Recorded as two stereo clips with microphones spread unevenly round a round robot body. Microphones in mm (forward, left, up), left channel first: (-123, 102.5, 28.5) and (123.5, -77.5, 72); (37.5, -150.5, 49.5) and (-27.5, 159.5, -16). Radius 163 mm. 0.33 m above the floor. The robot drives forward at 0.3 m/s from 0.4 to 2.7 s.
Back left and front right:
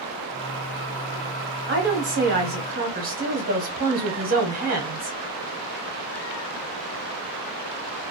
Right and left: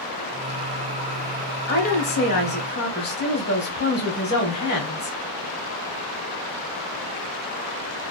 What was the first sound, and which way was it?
A woman speaking, 30° right.